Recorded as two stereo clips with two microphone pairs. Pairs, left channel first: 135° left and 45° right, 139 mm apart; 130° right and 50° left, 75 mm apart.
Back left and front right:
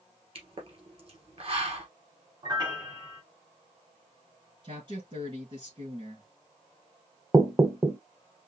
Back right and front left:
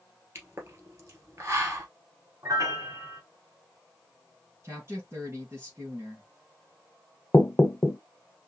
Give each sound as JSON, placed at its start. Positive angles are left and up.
{"t": 0.3, "sound": "a pop", "azimuth_deg": -5, "distance_m": 1.7}
{"t": 2.4, "sound": "a piano", "azimuth_deg": 10, "distance_m": 1.2}
{"t": 4.6, "sound": "a woman speaking", "azimuth_deg": 0, "distance_m": 3.0}
{"t": 7.3, "sound": "knocking", "azimuth_deg": -100, "distance_m": 0.6}